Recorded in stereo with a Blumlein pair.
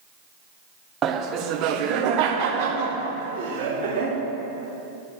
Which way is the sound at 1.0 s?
25° right.